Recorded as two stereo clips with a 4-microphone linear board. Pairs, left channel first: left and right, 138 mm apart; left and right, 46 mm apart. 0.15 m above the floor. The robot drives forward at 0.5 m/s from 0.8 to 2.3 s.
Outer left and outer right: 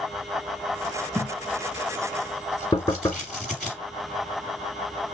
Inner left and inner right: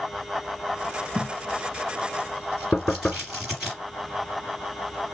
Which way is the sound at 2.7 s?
25° left (ahead or behind).